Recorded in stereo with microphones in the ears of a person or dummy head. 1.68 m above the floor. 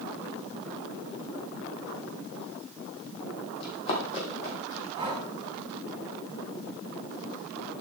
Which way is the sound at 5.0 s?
15° right (ahead or behind).